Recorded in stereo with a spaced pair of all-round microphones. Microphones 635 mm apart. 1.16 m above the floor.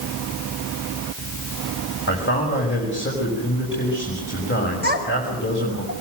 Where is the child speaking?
15° right (ahead or behind), 4.5 m.